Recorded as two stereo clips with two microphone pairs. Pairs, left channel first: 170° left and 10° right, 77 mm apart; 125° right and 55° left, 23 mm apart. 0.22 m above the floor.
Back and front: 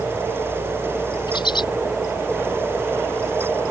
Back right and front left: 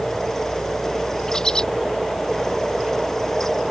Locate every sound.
1.3 s a bird: straight behind